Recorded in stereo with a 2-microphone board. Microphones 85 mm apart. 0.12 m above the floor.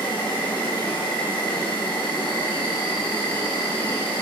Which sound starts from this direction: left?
An insect, at 0.0 s.